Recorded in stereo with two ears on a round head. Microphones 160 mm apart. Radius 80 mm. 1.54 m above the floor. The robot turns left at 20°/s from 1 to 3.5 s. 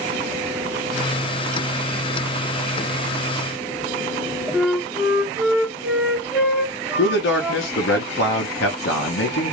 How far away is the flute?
About 0.7 m.